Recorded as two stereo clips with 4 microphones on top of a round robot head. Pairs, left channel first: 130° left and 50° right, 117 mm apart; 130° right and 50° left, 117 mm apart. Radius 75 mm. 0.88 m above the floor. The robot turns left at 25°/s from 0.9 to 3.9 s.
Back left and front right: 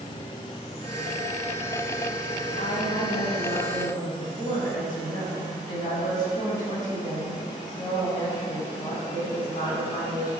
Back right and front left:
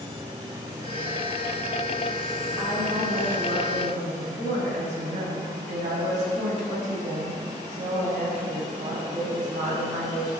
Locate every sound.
2.6 s a woman speaking: 105° left, 6 m; by 10.3 s 75° left, 6 m